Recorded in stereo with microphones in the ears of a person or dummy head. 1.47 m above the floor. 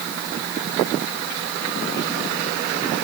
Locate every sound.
Only background noise.